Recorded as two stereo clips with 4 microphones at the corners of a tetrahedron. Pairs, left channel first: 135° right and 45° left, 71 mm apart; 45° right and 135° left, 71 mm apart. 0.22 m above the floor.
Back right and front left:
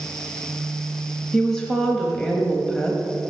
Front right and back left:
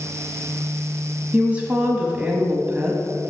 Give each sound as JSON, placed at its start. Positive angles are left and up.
{"t": 1.3, "sound": "a woman speaking", "azimuth_deg": 160, "distance_m": 1.2}